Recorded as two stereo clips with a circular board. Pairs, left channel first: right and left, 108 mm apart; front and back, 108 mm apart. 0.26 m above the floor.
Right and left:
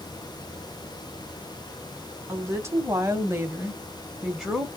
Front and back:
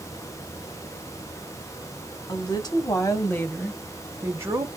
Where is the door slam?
I don't hear a door slam.